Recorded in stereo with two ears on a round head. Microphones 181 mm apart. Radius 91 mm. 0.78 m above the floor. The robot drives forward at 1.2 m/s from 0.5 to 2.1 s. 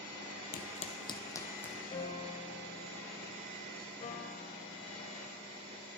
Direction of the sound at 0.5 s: 50° left (ahead or behind).